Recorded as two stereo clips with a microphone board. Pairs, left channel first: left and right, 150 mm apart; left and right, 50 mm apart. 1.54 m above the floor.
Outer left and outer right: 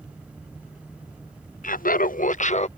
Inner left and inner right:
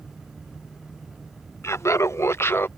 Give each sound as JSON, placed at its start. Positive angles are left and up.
{"t": 1.6, "sound": "laughter", "side_deg": 60}